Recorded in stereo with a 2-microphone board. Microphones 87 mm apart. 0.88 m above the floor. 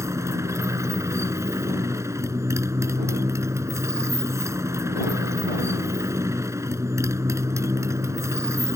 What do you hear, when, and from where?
0.0 s a motorcycle: 35° right (ahead or behind)